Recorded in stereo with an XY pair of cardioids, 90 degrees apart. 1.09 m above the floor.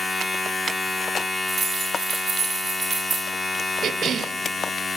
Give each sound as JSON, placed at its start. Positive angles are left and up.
{"t": 0.0, "sound": "a machine running", "azimuth_deg": 25, "distance_m": 1.8}
{"t": 1.5, "sound": "keys jangling", "azimuth_deg": -50, "distance_m": 3.5}
{"t": 3.8, "sound": "a cough", "azimuth_deg": -65, "distance_m": 0.6}